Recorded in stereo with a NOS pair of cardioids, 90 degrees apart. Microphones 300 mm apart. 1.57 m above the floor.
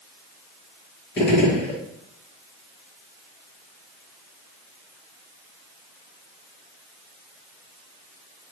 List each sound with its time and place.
1.2 s a gunshot: 35° left, 1.6 m